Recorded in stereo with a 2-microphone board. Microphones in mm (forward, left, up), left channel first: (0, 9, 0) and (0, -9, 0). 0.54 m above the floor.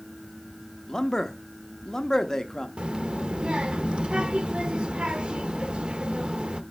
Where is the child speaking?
55° right (ahead or behind), 0.8 m.